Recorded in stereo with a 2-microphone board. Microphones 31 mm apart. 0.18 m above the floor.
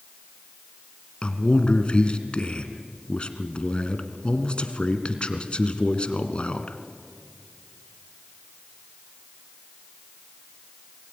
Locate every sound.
1.2 s a man speaking: 35° left (ahead or behind), 2 m